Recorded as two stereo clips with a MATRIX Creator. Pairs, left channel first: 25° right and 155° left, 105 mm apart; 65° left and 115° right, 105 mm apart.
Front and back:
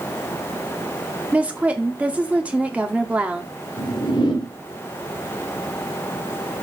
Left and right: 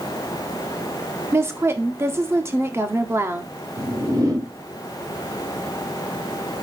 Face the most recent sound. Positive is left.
turn(degrees=-60)